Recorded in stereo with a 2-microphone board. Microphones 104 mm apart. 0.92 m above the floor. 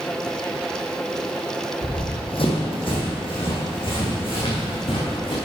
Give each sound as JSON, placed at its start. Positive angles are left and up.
{"t": 1.8, "sound": "running footsteps", "side_deg": 55, "distance_m": 2.0}